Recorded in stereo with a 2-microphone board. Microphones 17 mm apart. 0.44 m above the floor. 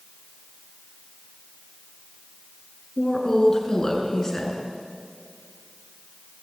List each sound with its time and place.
3.0 s a woman speaking: 30° left (ahead or behind), 6 m